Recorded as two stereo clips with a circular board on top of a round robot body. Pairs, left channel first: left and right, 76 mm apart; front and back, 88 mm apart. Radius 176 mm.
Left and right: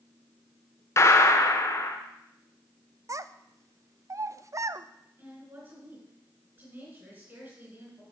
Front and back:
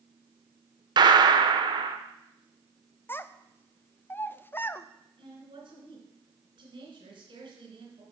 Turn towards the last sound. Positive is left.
turn(degrees=-150)